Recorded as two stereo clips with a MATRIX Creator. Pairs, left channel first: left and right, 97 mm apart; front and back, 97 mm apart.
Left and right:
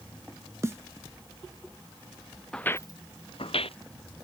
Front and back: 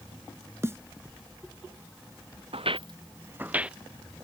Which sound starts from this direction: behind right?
A snare drum, at 0.6 s.